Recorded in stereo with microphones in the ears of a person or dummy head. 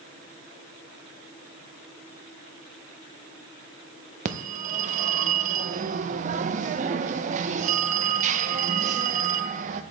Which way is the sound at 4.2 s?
45° right (ahead or behind).